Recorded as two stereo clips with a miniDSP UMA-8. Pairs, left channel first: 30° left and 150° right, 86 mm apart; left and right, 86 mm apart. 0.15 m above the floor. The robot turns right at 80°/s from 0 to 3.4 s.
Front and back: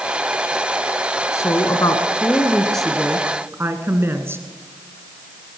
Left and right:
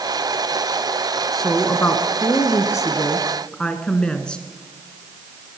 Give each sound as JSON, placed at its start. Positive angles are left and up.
{"t": 1.3, "sound": "a woman speaking", "azimuth_deg": 0, "distance_m": 1.5}